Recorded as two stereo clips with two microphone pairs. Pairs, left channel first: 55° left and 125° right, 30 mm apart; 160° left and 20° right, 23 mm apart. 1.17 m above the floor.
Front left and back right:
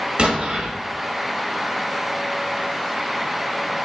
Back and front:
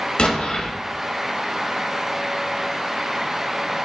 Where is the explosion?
175° right, 1.0 m.